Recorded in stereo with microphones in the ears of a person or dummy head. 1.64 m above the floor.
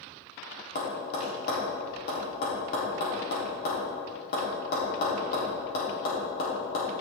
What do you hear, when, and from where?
0.8 s tapping: 60° left (ahead or behind), 3.5 m